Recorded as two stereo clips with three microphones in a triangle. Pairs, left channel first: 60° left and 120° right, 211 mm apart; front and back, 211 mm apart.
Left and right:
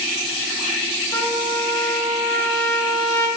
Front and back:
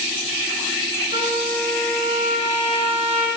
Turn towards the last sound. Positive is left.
turn(degrees=125)